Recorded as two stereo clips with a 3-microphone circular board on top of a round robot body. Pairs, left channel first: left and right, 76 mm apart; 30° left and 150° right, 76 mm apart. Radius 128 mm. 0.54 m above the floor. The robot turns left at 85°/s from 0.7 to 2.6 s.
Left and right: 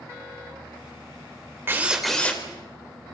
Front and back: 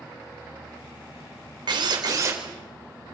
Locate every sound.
1.7 s a drill: 145° right, 3 m; by 2.4 s 150° left, 3 m